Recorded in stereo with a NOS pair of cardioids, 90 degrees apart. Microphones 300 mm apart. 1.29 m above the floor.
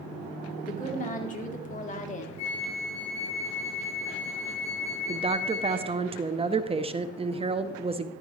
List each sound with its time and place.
0.6 s a woman speaking: 25° left, 3.5 m
2.4 s a flute: 60° left, 5.5 m
5.1 s a woman speaking: 20° right, 0.7 m